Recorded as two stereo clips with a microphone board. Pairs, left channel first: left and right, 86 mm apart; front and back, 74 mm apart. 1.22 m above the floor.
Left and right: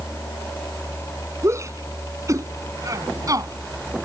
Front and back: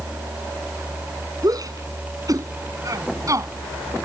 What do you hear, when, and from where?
1.4 s a shout: 145° right; by 4.0 s 135° right